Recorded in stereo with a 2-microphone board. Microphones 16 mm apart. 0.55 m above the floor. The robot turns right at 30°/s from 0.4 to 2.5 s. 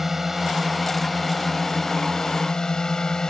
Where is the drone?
20° right; by 3.3 s 45° left.